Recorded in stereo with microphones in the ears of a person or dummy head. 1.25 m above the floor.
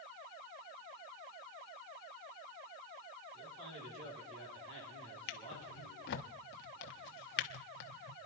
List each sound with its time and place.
3.3 s a man speaking: 70° right (ahead or behind), 9 m
5.3 s a drawer: 50° left (ahead or behind), 1.0 m